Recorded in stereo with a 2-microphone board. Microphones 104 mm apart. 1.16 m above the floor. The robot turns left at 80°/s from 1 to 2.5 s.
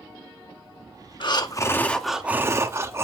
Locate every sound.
1.2 s breathing: 70° left, 0.8 m; by 3.0 s 35° right, 0.8 m